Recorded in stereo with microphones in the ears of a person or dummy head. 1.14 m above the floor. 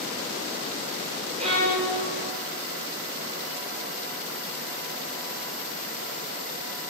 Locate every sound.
1.4 s a violin: 40° right (ahead or behind), 4 m